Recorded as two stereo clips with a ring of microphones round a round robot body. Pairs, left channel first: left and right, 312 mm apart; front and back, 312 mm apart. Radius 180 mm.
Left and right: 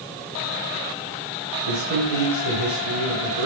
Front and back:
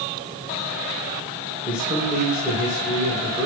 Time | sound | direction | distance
1.7 | a man speaking | 95° right | 5.5 m